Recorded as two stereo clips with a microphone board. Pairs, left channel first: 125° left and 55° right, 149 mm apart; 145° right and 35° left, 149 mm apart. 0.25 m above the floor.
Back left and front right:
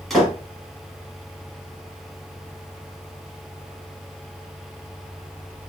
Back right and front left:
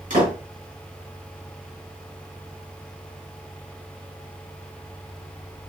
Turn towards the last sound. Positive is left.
turn(degrees=35)